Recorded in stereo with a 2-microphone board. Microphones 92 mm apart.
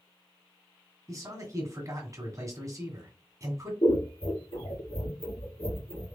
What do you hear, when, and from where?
1.1 s a man speaking: 40° right (ahead or behind), 1.7 m
3.8 s scissors: 80° left, 2.5 m